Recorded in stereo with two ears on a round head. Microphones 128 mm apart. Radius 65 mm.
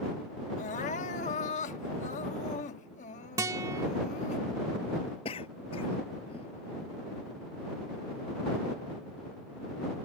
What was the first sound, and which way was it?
Crying, 55° left (ahead or behind).